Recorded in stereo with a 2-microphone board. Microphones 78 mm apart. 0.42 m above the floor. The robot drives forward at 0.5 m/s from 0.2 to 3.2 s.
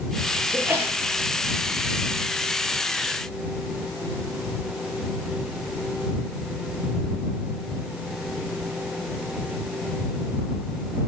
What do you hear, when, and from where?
0.5 s a sneeze: 30° right (ahead or behind), 8 m